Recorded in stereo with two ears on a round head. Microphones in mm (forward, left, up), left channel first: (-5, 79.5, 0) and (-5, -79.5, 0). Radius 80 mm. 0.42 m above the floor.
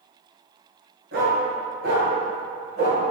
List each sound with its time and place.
1.1 s a dog barking: 60° right (ahead or behind), 2 m